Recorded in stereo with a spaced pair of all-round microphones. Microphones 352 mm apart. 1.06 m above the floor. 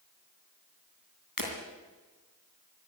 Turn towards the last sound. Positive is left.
turn(degrees=70)  # may be behind; listen again after turning